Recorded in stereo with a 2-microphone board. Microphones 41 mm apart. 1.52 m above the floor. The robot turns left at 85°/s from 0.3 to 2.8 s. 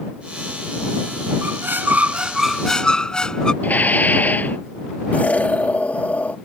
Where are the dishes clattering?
40° left (ahead or behind).